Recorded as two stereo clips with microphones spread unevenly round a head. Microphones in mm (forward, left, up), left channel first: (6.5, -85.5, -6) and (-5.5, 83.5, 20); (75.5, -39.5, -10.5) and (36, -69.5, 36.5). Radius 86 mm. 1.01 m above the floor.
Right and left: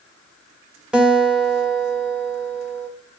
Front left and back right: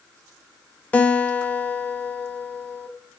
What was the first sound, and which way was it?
A guitar, 5° left.